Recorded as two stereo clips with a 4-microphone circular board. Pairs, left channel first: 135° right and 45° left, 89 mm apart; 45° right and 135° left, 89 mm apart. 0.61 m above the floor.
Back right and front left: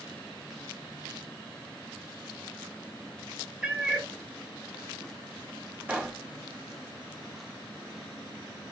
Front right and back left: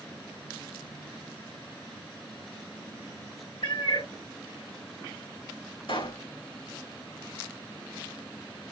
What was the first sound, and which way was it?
A cat meowing, 30° right.